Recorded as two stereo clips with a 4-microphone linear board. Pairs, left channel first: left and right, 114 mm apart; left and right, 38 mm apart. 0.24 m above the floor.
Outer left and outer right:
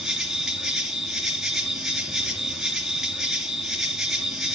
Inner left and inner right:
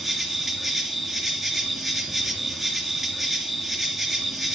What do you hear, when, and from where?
0.0 s an insect: 5° right (ahead or behind), 2.5 m